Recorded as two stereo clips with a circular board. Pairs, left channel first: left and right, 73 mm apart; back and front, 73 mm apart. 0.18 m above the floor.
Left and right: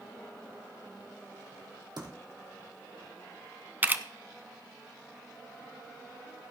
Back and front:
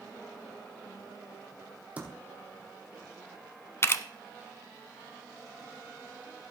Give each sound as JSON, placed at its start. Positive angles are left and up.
{"t": 2.0, "sound": "typing on a keyboard", "azimuth_deg": -70, "distance_m": 3.0}
{"t": 3.8, "sound": "a camera shutter", "azimuth_deg": -145, "distance_m": 0.7}